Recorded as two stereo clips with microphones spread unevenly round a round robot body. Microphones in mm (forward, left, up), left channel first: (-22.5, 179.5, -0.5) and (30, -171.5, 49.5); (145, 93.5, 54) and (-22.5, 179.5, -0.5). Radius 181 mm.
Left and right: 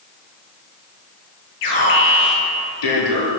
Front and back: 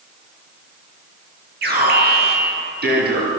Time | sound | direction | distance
1.6 | an alarm | 130° left | 9.5 m